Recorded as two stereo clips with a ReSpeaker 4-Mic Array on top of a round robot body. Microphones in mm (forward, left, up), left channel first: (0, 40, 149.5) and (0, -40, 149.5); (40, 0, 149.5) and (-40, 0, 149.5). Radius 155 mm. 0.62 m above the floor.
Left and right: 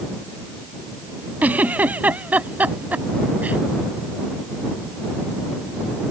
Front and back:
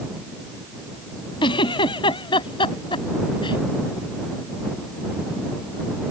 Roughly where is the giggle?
Ahead.